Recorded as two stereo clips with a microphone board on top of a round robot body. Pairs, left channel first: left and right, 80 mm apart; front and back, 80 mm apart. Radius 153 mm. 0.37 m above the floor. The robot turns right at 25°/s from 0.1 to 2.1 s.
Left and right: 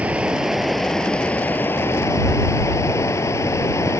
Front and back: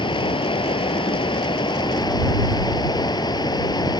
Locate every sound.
0.0 s running water: 15° right; by 4.0 s 35° left